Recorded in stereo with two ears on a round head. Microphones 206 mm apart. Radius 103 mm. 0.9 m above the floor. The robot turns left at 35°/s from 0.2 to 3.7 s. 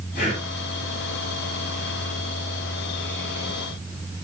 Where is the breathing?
35° left (ahead or behind), 6.5 m; by 0.4 s 30° left (ahead or behind), 6.5 m.